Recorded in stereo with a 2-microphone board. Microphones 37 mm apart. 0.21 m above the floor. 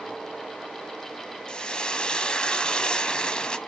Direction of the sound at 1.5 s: 25° left (ahead or behind).